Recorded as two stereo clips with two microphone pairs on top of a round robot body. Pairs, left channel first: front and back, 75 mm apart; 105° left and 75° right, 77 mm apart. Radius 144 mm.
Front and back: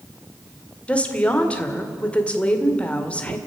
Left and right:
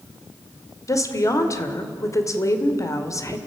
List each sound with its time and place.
0.9 s a woman speaking: 75° left, 2.5 m